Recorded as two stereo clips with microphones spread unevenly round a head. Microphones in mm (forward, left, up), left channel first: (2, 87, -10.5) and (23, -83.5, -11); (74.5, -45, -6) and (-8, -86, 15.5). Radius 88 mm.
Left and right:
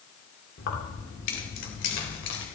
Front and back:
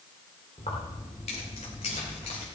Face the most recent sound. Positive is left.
turn(degrees=80)